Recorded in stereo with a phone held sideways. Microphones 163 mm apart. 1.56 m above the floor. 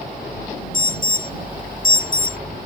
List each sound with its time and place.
0.7 s an alarm: 60° left (ahead or behind)